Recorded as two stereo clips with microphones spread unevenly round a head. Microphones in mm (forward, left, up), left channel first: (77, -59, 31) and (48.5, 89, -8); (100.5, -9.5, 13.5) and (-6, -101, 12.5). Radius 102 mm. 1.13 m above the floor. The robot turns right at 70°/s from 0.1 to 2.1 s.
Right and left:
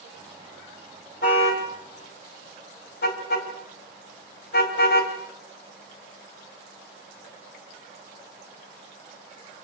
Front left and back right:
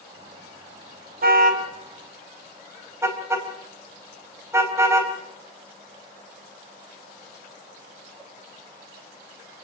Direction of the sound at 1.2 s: 130° right.